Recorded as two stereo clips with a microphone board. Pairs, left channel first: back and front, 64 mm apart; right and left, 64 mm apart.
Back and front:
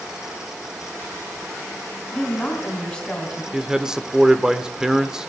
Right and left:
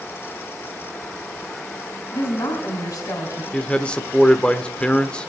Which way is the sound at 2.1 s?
105° right.